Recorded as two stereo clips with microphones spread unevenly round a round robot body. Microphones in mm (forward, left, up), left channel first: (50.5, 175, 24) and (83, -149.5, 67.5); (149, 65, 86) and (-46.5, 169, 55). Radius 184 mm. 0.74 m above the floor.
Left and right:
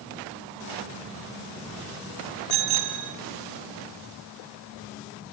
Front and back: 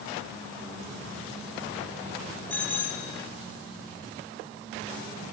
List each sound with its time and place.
2.5 s a bicycle bell: 115° right, 4 m